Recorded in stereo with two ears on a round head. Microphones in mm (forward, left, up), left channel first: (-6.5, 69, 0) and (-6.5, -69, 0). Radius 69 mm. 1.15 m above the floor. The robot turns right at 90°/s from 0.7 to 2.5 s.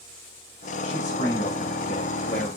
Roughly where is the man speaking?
Ahead.